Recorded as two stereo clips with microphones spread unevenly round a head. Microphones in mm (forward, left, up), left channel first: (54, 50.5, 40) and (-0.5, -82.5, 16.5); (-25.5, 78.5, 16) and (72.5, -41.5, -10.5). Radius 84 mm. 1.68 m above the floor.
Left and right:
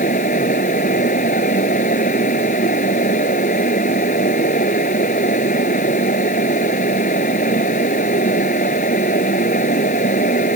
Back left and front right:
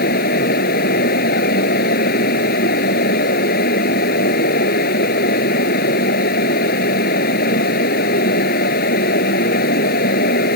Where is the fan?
110° left.